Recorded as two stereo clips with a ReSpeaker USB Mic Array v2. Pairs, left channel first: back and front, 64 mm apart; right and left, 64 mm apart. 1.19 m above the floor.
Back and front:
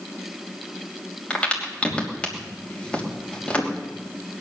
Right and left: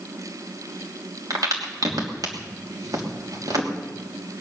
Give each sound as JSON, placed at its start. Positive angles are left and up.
{"t": 1.3, "sound": "a crack", "azimuth_deg": 105, "distance_m": 3.0}